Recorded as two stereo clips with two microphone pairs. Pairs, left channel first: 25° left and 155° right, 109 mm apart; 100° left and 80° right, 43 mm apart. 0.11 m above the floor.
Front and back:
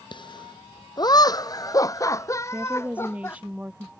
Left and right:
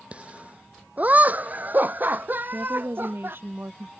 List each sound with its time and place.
0.1 s laughter: 20° right; by 3.4 s 45° right
2.5 s a woman speaking: 80° right